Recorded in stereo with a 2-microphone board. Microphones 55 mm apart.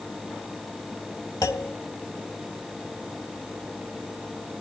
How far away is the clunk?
About 1.2 m.